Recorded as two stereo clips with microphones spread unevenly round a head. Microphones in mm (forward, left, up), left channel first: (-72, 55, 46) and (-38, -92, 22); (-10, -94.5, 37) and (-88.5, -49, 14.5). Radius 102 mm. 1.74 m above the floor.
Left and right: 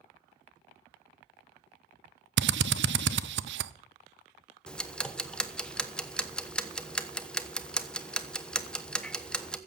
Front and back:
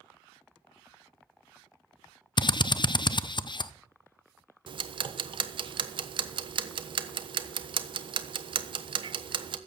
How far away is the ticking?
About 1.1 m.